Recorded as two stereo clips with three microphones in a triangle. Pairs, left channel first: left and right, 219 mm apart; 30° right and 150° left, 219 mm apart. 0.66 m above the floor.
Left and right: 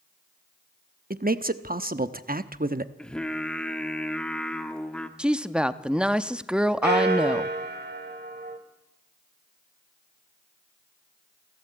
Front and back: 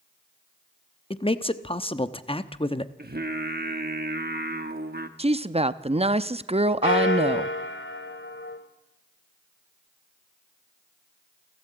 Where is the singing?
175° left, 1.1 m.